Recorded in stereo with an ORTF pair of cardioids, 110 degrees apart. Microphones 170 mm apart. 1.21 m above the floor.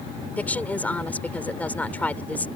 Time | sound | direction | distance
0.4 | a woman speaking | 10° left | ?